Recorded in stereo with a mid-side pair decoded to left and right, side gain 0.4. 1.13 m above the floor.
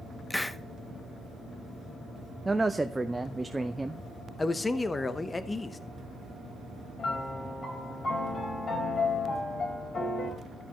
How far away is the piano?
About 4.5 m.